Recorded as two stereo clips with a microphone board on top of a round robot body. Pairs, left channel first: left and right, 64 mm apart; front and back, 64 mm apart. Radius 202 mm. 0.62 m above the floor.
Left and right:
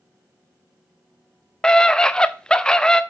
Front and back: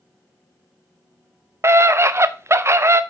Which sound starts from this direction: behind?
A scream, at 1.6 s.